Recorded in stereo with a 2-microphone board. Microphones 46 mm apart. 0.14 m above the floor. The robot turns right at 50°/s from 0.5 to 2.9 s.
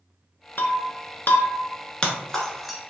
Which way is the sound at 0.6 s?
45° left (ahead or behind).